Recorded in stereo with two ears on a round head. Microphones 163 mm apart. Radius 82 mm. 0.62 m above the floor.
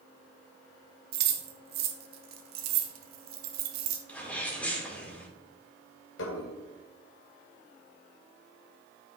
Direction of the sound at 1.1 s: 55° right (ahead or behind).